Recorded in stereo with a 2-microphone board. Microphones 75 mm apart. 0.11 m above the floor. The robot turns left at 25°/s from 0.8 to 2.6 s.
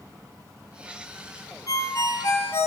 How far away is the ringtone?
About 1.7 m.